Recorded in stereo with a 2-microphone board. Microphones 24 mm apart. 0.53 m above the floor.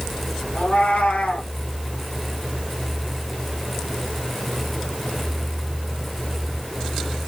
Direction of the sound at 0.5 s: 70° left (ahead or behind).